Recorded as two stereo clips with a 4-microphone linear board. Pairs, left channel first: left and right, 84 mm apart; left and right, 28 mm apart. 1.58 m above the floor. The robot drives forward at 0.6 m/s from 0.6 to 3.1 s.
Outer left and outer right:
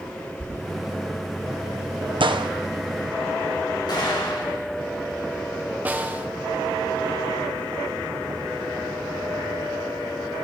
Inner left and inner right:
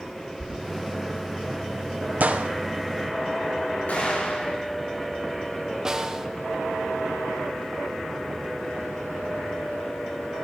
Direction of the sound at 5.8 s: 20° right (ahead or behind).